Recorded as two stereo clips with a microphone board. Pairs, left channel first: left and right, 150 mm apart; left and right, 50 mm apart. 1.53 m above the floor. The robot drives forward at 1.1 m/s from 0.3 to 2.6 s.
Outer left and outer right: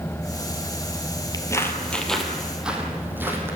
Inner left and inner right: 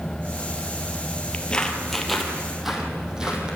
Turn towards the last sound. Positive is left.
turn(degrees=-15)  # may be behind; listen again after turning